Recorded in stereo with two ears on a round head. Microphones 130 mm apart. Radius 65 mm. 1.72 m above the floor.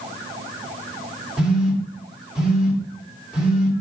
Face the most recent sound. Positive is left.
turn(degrees=-5)  # may be behind; listen again after turning